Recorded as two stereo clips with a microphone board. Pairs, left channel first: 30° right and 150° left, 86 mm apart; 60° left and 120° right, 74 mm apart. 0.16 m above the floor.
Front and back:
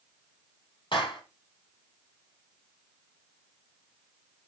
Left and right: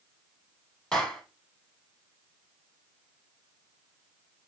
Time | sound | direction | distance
0.9 | a clap | 25° right | 4 m